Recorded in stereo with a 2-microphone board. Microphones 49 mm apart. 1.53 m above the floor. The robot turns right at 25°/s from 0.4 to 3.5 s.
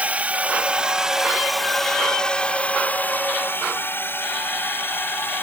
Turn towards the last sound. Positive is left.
turn(degrees=50)  # may be behind; listen again after turning